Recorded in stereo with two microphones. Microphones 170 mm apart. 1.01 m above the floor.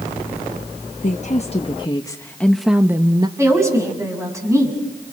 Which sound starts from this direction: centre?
A woman speaking, at 3.4 s.